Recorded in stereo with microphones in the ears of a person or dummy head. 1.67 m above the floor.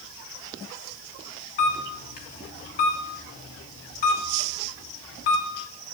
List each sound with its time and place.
1.6 s a camera shutter: 45° left (ahead or behind), 4 m